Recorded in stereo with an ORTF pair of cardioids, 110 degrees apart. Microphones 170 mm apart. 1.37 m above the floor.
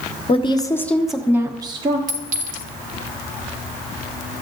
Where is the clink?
50° right, 2.0 m.